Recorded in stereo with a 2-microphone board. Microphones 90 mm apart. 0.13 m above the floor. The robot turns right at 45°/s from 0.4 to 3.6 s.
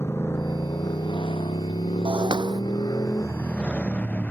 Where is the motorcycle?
30° left (ahead or behind); by 4.3 s 15° left (ahead or behind).